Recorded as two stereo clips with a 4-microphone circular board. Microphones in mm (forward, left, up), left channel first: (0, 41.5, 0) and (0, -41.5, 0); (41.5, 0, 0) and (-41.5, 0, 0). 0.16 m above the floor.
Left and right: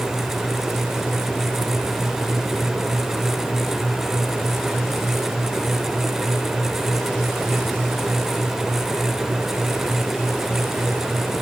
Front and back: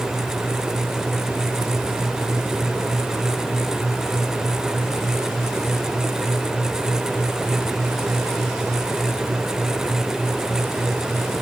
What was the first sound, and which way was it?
Only background noise.